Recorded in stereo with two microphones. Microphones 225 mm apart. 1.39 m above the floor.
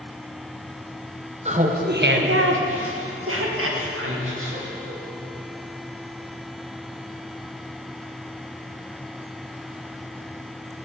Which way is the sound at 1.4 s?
30° right (ahead or behind).